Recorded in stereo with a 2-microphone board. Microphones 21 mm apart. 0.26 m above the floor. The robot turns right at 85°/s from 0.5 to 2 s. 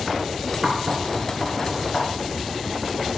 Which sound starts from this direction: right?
Knocking, at 0.6 s.